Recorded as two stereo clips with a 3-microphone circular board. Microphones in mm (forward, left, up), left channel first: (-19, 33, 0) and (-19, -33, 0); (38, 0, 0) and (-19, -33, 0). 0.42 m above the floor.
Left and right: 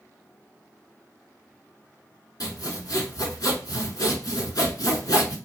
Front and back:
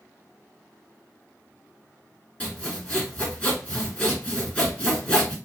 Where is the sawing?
100° left, 1.0 m.